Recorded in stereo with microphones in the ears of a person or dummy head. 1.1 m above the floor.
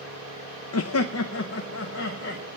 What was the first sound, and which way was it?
Laughter, 75° left (ahead or behind).